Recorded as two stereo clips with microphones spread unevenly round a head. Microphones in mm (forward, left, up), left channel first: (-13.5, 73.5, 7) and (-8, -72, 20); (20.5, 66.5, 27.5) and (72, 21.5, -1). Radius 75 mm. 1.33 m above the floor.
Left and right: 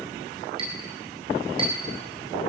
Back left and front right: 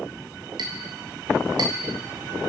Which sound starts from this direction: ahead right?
A clink, at 0.6 s.